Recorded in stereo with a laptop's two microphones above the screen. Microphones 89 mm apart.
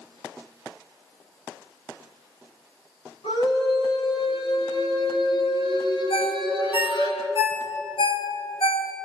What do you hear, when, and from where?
3.2 s a scream: 85° left, 9.5 m; by 7.1 s 70° left (ahead or behind), 11.5 m
6.1 s a ringtone: 85° left, 2.5 m